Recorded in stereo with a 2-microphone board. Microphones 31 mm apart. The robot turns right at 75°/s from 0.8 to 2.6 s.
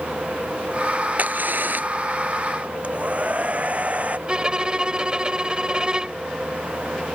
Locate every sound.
1.2 s a crack: 120° right; by 1.9 s 70° right
2.8 s a hair dryer: 45° right (ahead or behind)
4.3 s a violin: 30° right (ahead or behind)